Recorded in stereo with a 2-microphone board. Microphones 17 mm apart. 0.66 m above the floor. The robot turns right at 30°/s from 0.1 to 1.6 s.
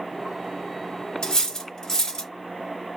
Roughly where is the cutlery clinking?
Left.